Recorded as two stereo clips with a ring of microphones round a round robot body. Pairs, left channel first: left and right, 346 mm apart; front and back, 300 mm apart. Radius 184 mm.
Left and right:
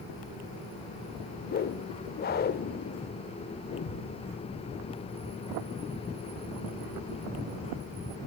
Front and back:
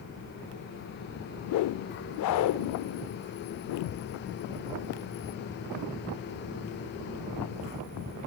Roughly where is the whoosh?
Ahead left.